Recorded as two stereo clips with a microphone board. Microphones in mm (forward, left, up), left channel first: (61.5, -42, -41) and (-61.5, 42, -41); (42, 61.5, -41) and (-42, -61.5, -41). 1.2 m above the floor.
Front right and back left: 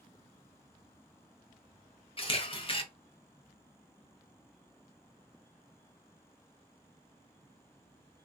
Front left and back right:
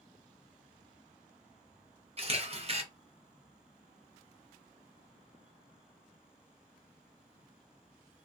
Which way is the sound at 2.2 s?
80° right.